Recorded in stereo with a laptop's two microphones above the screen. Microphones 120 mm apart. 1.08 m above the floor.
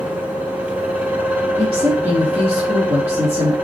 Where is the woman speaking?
65° right (ahead or behind), 1.6 m.